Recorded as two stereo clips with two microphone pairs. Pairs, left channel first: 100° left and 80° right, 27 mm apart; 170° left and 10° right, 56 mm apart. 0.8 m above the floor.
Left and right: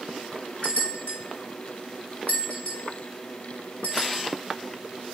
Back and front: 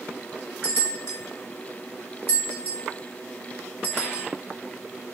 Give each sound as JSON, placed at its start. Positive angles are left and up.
{"t": 0.6, "sound": "a bell", "azimuth_deg": 130, "distance_m": 2.5}